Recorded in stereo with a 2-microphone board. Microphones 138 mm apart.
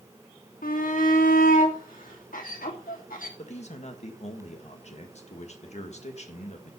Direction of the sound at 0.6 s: 85° left.